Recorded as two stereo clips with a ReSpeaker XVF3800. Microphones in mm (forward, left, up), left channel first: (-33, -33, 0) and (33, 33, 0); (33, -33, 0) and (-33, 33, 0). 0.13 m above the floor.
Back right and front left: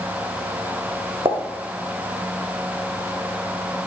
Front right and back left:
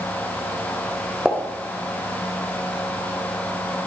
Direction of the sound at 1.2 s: 50° left.